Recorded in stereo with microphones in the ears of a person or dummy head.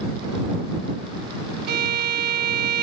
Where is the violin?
55° right (ahead or behind).